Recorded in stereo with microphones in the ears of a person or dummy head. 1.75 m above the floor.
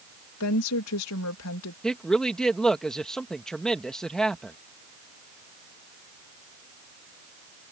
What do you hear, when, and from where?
0.4 s a woman speaking: 80° left
1.8 s a woman speaking: centre (ahead or behind)